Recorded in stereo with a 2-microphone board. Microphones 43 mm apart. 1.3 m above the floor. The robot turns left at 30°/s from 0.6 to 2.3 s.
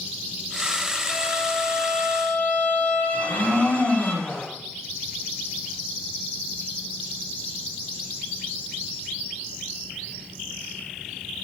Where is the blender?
40° left (ahead or behind), 1.9 m.